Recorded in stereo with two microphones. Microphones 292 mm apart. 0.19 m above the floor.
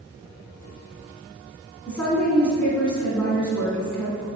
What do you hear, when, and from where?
1.9 s a woman speaking: 5° left (ahead or behind), 1.9 m